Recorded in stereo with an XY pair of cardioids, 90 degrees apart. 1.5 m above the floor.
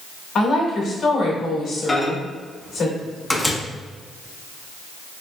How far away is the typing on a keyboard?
I don't hear typing on a keyboard.